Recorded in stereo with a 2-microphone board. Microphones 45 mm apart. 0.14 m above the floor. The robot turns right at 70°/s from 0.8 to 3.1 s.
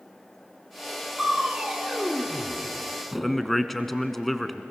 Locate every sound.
1.2 s crushing: 10° right (ahead or behind), 1.6 m; by 3.5 s centre (ahead or behind), 1.6 m
3.2 s a man speaking: 5° left (ahead or behind), 1.1 m